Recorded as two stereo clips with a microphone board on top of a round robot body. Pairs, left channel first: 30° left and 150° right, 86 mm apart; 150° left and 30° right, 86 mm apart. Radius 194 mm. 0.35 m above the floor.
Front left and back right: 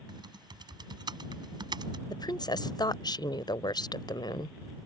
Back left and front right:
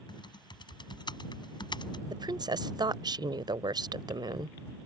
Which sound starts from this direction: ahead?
A woman speaking, at 2.1 s.